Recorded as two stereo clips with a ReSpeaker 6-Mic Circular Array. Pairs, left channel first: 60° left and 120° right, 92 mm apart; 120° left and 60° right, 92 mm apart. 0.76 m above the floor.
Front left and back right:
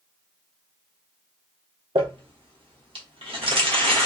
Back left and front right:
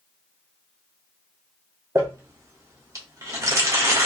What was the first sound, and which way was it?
Crumpling, 115° right.